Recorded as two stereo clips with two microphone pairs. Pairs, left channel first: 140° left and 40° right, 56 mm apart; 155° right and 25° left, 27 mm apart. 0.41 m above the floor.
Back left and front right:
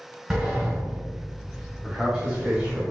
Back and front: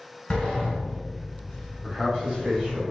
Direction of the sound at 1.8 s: 15° left.